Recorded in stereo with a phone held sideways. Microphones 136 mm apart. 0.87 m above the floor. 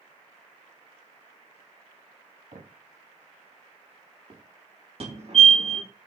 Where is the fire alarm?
50° right (ahead or behind), 3 m.